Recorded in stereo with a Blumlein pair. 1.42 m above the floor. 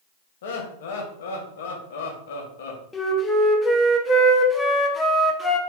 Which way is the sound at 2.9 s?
15° left.